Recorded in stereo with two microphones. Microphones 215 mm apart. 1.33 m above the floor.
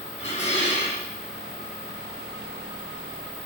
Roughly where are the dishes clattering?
Left.